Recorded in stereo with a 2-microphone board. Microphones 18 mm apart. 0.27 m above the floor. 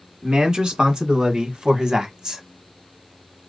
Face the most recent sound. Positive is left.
turn(degrees=-50)  # may be behind; listen again after turning